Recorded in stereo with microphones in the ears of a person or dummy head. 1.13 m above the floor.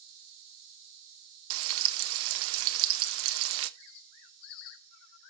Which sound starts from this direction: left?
A bird, at 3.8 s.